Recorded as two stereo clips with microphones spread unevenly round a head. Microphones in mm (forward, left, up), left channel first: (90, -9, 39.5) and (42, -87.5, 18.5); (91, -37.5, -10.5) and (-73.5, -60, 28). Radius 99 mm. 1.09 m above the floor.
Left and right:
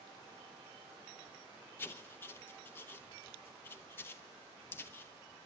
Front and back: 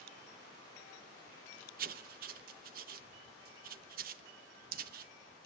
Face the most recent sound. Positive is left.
turn(degrees=135)